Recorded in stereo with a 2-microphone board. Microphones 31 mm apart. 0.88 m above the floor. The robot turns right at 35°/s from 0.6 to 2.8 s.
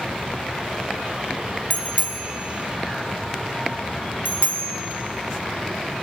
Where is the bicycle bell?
50° left (ahead or behind), 2 m; by 4.8 s 85° left, 2 m.